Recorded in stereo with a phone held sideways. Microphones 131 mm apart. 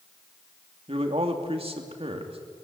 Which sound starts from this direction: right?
A man speaking, at 0.9 s.